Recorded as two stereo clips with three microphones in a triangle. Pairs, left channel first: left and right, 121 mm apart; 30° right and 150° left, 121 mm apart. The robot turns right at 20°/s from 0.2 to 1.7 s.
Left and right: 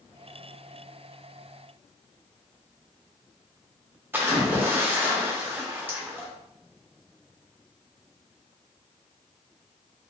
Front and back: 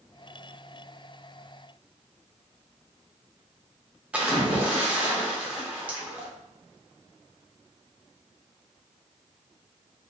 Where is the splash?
140° right, 0.7 m.